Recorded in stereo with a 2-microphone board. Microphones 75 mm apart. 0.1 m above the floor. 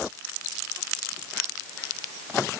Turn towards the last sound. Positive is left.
No sound to turn to.